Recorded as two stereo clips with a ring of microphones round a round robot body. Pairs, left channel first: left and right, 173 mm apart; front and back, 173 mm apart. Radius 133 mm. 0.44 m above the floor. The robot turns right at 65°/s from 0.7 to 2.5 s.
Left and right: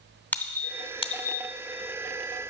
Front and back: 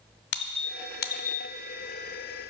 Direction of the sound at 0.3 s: 10° left.